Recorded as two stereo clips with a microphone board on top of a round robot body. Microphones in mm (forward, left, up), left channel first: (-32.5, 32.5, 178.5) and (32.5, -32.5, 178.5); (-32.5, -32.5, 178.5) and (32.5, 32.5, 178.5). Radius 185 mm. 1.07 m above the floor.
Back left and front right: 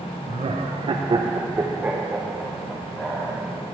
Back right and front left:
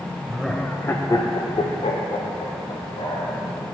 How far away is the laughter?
About 1.0 m.